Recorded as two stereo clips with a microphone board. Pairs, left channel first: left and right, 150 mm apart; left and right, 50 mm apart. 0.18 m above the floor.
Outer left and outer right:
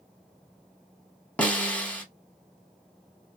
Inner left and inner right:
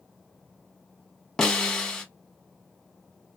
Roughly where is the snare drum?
Centre.